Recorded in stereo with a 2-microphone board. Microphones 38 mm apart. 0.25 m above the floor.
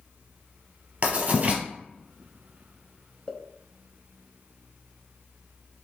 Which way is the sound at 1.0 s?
50° right (ahead or behind).